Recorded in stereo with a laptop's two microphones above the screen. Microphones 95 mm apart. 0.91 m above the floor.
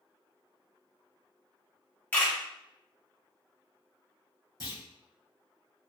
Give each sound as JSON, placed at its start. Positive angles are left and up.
{"t": 2.1, "sound": "a camera shutter", "side_deg": 20, "distance_m": 0.9}
{"t": 4.6, "sound": "a clunk", "side_deg": -55, "distance_m": 1.6}